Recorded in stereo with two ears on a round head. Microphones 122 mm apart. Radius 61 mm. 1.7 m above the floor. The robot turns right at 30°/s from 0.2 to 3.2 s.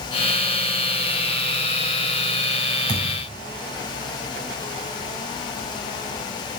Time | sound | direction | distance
2.9 | a thud | 30° left (ahead or behind) | 5 m